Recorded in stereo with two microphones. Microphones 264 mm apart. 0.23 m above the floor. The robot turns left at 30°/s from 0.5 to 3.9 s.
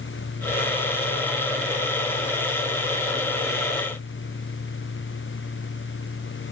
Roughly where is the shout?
I don't hear a shout.